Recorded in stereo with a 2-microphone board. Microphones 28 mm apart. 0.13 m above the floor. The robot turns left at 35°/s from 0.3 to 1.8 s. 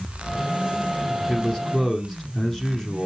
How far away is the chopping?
No chopping in this recording.